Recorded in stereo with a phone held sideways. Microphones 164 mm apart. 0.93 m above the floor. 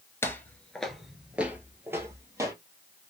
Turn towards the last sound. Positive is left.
turn(degrees=-20)  # may be behind; listen again after turning